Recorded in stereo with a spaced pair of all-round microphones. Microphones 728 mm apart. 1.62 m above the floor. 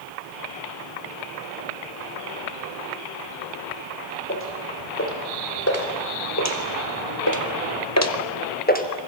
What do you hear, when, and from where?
4.3 s footsteps: 15° left (ahead or behind), 5.5 m; by 8.9 s 10° left (ahead or behind), 2 m